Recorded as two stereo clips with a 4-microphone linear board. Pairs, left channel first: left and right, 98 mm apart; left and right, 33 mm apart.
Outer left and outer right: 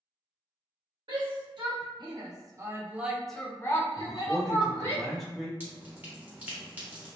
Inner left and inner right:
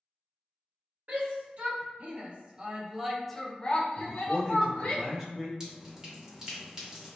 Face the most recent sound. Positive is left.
turn(degrees=-20)  # may be behind; listen again after turning